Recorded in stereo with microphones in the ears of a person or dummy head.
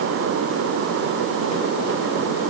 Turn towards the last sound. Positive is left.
No sound to turn to.